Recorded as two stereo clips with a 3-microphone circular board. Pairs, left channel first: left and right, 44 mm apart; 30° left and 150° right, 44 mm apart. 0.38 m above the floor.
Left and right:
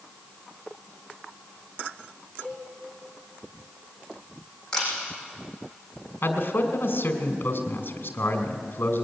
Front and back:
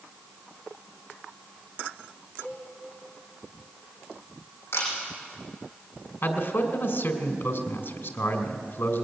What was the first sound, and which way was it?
A cowbell, 40° left.